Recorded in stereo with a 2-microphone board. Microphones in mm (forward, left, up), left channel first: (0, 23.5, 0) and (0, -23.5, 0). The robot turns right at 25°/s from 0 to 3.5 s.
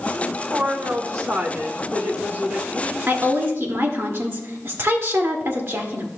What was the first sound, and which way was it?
A woman speaking, 95° right.